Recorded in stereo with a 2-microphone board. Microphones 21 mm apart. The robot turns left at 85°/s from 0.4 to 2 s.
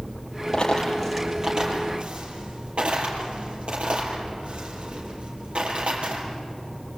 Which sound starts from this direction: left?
A dropped coin, at 0.5 s.